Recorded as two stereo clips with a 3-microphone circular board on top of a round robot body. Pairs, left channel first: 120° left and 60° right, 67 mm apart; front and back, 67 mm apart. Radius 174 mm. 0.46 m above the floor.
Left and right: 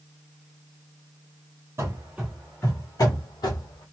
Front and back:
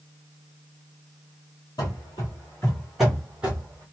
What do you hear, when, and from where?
1.8 s running footsteps: 15° right, 0.7 m; by 3.8 s 110° left, 1.2 m